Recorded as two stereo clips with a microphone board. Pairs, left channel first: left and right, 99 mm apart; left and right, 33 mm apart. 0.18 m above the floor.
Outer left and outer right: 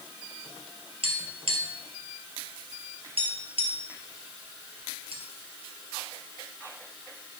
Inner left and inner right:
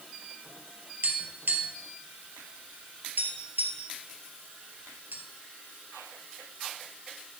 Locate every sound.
1.0 s tapping: 75° right (ahead or behind), 2 m